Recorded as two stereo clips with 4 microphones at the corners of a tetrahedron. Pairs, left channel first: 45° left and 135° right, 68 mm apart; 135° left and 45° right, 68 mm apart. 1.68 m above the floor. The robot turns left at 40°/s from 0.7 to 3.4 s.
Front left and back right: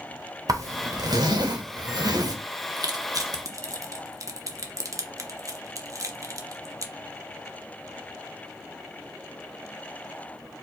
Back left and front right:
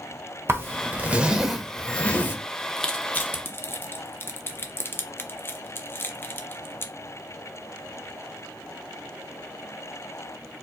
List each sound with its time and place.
0.5 s a zipper: 100° right, 0.7 m; by 2.4 s 165° right, 0.7 m
2.8 s crushing: 140° right, 0.5 m; by 6.9 s 170° right, 0.5 m